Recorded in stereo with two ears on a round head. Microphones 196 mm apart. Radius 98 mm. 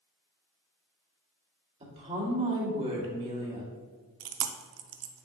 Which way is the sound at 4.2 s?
70° right (ahead or behind).